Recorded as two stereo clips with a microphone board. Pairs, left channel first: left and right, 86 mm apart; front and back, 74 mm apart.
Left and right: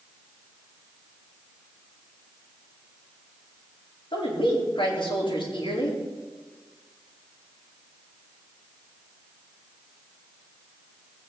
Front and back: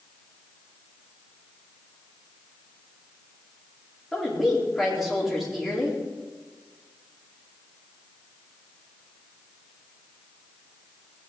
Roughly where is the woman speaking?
Left.